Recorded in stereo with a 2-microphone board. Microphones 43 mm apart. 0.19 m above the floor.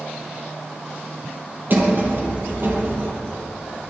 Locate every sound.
1.7 s a sliding door: 50° right (ahead or behind), 3 m